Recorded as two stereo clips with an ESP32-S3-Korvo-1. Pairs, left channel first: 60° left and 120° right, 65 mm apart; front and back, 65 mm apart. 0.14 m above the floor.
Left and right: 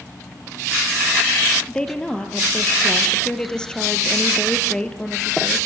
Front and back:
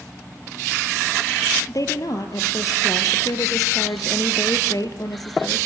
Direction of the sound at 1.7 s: 15° right.